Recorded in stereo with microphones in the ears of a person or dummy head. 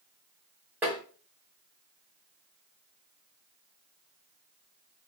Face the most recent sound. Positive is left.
turn(degrees=-10)  # may be behind; listen again after turning